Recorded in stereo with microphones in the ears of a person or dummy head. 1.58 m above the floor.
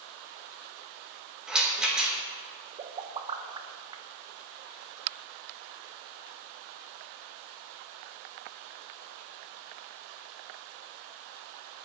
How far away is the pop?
About 0.9 m.